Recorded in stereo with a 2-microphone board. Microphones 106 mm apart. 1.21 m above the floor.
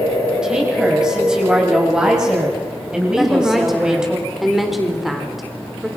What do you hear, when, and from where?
0.4 s a woman speaking: 10° right (ahead or behind), 6.5 m
3.2 s a woman speaking: centre (ahead or behind), 4 m